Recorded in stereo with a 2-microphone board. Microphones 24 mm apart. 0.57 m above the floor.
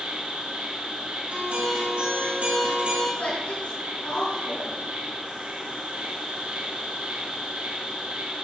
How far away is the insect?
About 4.5 m.